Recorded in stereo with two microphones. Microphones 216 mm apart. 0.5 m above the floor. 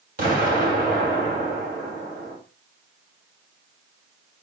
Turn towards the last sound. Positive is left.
turn(degrees=-45)  # may be behind; listen again after turning